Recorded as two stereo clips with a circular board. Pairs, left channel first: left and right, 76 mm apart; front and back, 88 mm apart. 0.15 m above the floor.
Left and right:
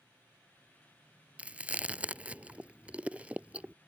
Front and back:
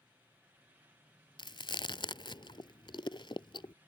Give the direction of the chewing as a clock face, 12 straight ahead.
1 o'clock.